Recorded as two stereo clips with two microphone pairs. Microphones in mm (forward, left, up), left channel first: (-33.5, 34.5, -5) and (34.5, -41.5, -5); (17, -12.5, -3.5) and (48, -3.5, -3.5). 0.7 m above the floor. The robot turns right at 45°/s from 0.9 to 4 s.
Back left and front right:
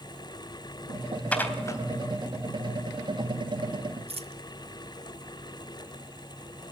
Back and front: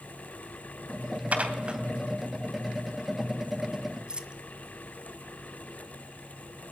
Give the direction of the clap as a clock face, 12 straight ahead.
I don't hear a clap.